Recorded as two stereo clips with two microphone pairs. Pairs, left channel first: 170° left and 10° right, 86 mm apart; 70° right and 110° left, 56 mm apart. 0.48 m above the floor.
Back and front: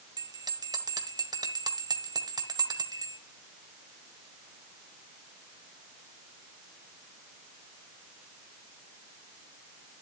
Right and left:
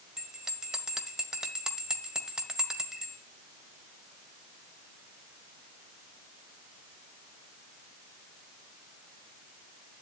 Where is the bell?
30° left, 1.5 m.